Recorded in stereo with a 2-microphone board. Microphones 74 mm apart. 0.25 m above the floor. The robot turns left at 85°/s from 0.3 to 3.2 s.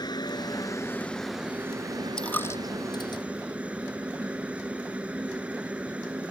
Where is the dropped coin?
10° left (ahead or behind); by 3.2 s 85° left.